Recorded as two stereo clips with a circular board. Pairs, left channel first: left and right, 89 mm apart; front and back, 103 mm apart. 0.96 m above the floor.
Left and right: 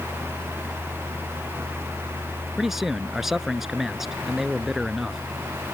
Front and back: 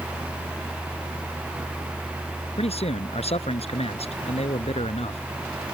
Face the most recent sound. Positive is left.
turn(degrees=-5)